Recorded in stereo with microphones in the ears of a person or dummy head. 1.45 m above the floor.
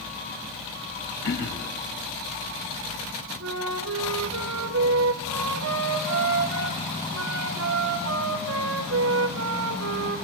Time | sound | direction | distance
1.2 | throat clearing | 60° left (ahead or behind) | 3.5 m
3.4 | a flute | 75° right (ahead or behind) | 2.5 m